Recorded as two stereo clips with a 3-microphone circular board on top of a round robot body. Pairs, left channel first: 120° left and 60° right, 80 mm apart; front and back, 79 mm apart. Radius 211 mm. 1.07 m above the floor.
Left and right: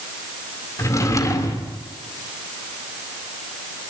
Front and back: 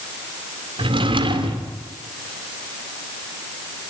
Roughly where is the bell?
No bell in this recording.